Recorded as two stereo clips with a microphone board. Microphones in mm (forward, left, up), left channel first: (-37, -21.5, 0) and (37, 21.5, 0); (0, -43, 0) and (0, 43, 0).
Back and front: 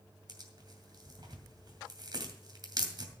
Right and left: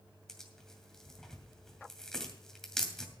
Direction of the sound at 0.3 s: 5° right.